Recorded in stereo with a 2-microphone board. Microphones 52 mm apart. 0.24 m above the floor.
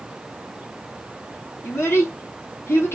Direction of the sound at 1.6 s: 55° left (ahead or behind).